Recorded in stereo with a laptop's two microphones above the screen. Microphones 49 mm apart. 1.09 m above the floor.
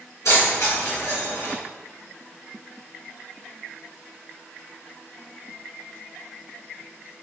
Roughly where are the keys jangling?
Left.